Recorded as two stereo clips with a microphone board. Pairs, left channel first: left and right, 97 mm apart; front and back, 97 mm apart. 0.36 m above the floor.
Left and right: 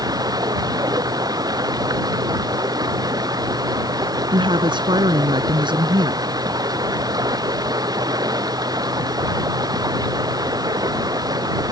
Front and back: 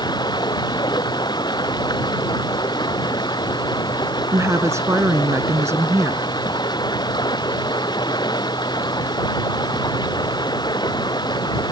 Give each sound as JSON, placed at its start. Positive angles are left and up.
{"t": 0.0, "sound": "running water", "azimuth_deg": -40}
{"t": 4.3, "sound": "a woman speaking", "azimuth_deg": -120}